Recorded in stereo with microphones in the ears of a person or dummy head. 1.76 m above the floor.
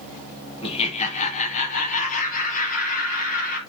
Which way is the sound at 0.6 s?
35° left (ahead or behind).